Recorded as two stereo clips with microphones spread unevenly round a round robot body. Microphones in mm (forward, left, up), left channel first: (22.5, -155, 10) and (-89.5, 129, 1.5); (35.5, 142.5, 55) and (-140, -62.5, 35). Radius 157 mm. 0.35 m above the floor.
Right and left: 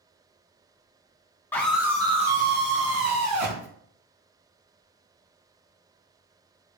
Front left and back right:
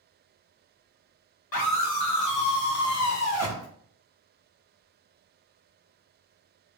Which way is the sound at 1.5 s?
15° left.